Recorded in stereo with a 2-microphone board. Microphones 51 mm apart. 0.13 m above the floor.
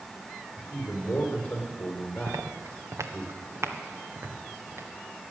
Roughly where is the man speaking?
Left.